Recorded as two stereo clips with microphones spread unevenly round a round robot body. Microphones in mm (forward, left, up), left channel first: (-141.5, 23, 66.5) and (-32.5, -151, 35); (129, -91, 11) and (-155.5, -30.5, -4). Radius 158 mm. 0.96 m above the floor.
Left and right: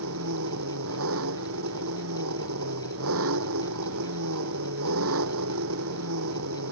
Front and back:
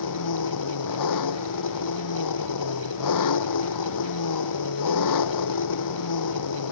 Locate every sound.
0.0 s an engine running: 30° right